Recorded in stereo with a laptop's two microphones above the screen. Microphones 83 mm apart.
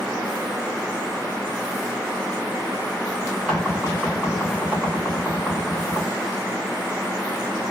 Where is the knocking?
10° left (ahead or behind), 1.4 m.